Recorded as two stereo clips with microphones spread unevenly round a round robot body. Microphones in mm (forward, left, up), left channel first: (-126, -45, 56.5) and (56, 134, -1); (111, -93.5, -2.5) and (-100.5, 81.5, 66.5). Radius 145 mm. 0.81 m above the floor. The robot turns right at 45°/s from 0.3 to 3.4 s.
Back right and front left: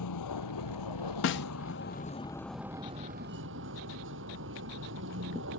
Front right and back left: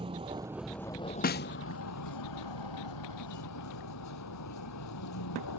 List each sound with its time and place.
0.0 s a vehicle: 145° right; by 5.6 s 5° right
1.2 s a snare drum: 85° right; by 1.5 s 75° right